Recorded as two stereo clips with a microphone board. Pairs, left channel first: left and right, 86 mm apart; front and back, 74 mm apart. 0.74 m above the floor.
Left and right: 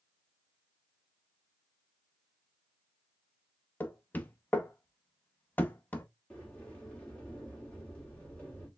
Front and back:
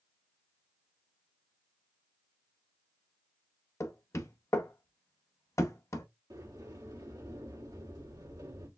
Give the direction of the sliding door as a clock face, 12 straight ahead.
7 o'clock.